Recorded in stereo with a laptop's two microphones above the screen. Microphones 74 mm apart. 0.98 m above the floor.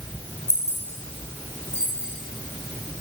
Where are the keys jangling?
40° left (ahead or behind), 1.2 m.